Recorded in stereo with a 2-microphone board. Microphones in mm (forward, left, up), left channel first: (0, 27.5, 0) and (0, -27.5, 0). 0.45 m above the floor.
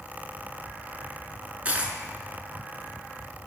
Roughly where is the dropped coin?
Right.